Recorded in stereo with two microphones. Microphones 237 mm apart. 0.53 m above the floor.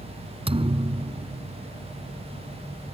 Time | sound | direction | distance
0.5 | a thud | 25° right (ahead or behind) | ?